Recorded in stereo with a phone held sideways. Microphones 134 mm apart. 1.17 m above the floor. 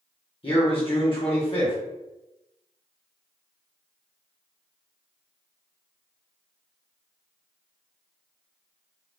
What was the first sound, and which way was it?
A man speaking, 40° left (ahead or behind).